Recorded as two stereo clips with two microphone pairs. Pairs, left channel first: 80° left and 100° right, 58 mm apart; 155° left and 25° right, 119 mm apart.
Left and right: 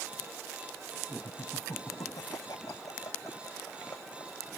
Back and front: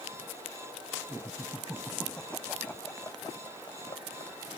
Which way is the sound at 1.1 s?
55° left.